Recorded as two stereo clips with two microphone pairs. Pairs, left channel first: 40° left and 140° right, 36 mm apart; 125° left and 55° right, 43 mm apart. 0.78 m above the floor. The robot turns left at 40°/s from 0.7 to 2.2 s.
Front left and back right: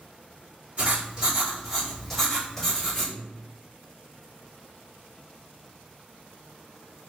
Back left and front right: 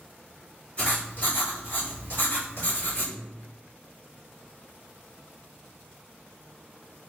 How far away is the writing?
About 1.9 m.